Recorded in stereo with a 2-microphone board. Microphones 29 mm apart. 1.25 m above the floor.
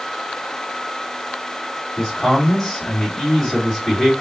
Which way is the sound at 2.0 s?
15° left (ahead or behind).